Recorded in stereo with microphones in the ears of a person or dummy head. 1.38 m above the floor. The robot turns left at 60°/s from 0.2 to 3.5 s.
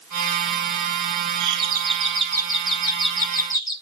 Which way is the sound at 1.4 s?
100° right.